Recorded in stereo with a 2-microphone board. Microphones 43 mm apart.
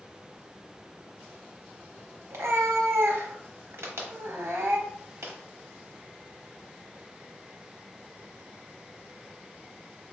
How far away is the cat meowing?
About 0.8 m.